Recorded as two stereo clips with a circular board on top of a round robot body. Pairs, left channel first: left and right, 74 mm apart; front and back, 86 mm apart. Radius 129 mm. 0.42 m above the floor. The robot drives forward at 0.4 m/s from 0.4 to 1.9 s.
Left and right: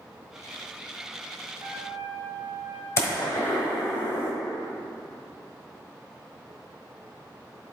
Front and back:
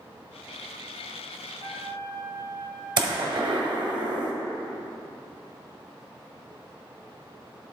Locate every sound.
1.6 s a trumpet: 145° right, 2.5 m; by 2.9 s 150° right, 2.5 m
3.0 s a gunshot: 145° left, 1.3 m